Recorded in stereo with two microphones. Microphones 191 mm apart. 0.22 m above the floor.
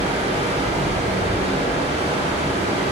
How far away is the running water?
About 2.5 m.